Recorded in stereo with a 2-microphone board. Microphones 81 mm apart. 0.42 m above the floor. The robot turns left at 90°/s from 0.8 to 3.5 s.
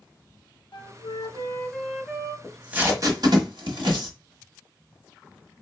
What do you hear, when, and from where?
0.7 s a flute: 100° left, 0.6 m; by 2.3 s 35° right, 0.6 m
2.4 s tape being pulled: 5° left (ahead or behind), 1.3 m; by 4.1 s 75° right (ahead or behind), 1.3 m